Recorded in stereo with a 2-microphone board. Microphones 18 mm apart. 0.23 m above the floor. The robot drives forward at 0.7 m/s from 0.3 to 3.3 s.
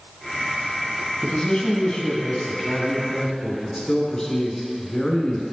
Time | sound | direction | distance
1.2 | a man speaking | 50° left (ahead or behind) | 1.5 m